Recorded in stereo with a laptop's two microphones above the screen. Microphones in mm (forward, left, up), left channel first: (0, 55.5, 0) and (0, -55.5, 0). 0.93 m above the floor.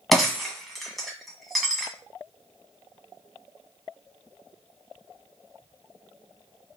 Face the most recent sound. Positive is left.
turn(degrees=0)  # may be behind; listen again after turning